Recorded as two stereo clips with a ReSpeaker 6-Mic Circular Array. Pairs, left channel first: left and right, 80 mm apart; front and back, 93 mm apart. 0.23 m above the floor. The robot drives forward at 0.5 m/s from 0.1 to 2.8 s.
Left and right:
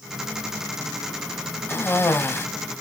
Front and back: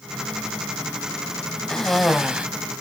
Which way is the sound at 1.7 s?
75° left.